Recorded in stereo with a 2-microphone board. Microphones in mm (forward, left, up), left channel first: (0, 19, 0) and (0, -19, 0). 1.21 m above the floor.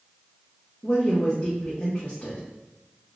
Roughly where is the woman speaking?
Left.